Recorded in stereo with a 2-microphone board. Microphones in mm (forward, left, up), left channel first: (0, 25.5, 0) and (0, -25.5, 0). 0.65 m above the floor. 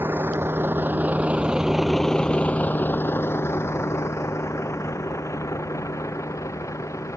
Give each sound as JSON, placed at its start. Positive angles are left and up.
{"t": 0.0, "sound": "a vehicle", "side_deg": -55}